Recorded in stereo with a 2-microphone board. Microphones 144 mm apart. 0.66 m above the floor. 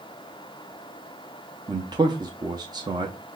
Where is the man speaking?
30° right (ahead or behind), 0.6 m.